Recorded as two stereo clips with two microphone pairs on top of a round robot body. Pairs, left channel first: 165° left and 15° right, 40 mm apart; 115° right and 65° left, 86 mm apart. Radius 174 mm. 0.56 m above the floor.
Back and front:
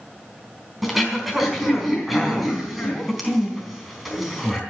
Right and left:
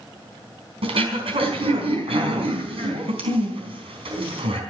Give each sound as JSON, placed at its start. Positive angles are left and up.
{"t": 0.8, "sound": "throat clearing", "azimuth_deg": 70, "distance_m": 4.0}